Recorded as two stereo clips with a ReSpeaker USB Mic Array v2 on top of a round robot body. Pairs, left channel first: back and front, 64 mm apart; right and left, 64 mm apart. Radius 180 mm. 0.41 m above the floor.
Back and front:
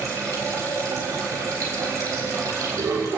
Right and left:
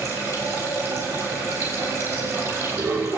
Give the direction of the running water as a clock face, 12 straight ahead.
10 o'clock.